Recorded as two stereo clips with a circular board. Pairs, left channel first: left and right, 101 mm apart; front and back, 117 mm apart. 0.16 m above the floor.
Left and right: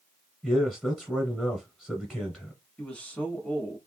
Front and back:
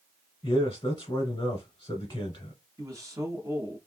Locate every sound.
0.4 s a man speaking: 10° left, 1.2 m
2.8 s a man speaking: 160° left, 1.2 m